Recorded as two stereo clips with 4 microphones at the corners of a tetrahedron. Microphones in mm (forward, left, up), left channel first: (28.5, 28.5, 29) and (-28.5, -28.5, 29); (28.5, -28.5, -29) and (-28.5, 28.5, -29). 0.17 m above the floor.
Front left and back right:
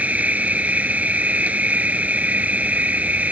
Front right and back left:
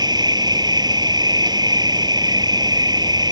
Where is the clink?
No clink in this recording.